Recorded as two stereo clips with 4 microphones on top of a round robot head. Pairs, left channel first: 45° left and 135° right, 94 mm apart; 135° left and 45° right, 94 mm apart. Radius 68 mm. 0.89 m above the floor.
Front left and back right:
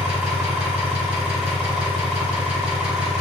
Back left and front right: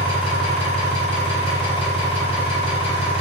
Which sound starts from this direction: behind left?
An engine running, at 0.0 s.